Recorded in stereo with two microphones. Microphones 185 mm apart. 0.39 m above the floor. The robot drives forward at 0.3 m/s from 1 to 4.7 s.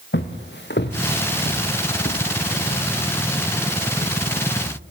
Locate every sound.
0.1 s footsteps: 75° left (ahead or behind), 2 m; by 4.8 s 55° left (ahead or behind), 3.5 m